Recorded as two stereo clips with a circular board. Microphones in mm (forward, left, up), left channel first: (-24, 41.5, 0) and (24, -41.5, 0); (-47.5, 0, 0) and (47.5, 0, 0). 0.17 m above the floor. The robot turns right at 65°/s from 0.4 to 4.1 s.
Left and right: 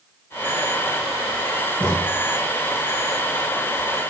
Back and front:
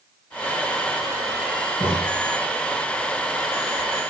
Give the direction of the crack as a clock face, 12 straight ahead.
7 o'clock.